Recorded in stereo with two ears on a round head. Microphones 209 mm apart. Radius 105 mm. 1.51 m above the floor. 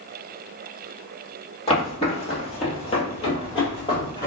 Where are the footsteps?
25° left (ahead or behind), 1.9 m; by 4.3 s 20° left (ahead or behind), 2.0 m.